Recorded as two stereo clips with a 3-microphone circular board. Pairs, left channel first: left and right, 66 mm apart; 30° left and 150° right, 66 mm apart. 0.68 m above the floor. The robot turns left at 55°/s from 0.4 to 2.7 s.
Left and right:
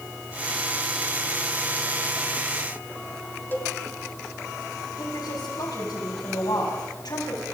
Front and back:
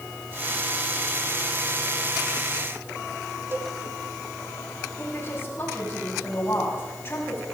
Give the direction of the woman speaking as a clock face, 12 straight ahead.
9 o'clock.